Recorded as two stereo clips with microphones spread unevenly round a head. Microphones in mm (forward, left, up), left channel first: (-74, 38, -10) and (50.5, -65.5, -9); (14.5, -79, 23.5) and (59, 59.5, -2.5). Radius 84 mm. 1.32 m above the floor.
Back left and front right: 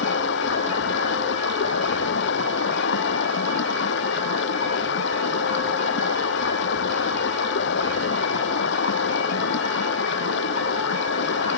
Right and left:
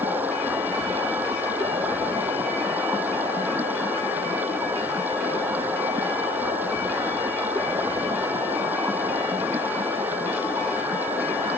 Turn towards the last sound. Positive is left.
turn(degrees=155)